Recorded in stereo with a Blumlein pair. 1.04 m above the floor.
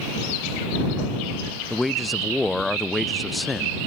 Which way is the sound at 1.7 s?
5° left.